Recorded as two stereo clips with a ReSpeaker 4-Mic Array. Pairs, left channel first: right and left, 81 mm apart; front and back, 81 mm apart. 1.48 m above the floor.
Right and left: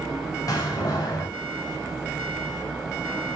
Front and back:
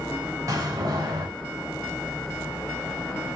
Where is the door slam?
135° right, 6.5 m.